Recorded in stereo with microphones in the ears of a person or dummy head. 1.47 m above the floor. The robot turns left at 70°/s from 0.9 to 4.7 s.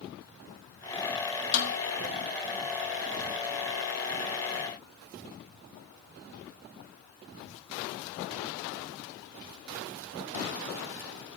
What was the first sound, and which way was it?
A snare drum, 60° left (ahead or behind).